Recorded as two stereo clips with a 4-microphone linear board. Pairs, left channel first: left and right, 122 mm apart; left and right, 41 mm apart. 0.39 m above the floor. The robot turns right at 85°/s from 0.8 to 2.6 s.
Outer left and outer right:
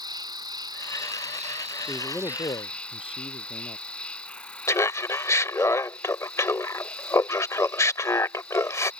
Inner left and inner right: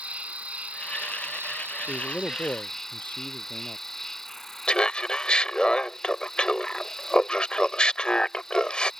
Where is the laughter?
25° left (ahead or behind).